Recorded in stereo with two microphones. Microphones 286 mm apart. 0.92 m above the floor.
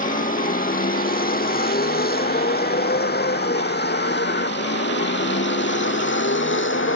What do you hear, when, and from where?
0.0 s a vehicle: 30° left (ahead or behind); by 7.0 s 45° left (ahead or behind)